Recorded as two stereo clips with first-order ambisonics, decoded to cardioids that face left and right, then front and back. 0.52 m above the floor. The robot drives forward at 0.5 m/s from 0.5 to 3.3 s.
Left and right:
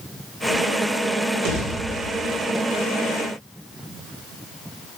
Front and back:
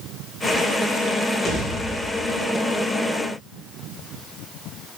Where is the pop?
75° right, 2 m; by 2.3 s 90° right, 2 m.